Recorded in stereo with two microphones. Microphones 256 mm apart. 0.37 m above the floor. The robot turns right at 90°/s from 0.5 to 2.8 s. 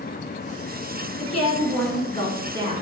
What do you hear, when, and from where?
1.2 s a woman speaking: 70° left, 4 m; by 2.7 s 150° right, 4 m